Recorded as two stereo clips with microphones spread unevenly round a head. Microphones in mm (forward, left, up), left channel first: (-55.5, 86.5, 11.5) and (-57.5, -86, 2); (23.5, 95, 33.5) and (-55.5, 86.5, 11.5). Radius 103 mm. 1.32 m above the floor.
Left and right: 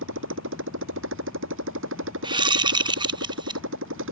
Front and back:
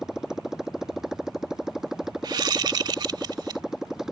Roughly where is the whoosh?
Behind right.